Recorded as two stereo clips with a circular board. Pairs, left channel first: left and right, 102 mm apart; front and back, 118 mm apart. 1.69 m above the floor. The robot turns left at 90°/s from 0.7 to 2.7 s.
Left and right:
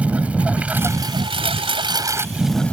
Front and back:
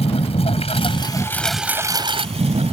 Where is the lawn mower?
15° right; by 2.7 s 165° left.